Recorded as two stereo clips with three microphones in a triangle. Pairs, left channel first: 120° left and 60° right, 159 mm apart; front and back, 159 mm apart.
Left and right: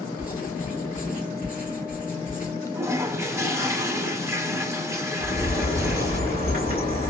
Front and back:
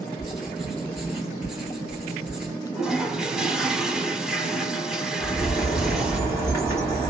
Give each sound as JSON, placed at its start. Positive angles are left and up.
{"t": 0.2, "sound": "writing", "azimuth_deg": 95, "distance_m": 1.5}
{"t": 2.8, "sound": "a toilet flushing", "azimuth_deg": -100, "distance_m": 0.6}
{"t": 5.2, "sound": "a bird", "azimuth_deg": 105, "distance_m": 2.5}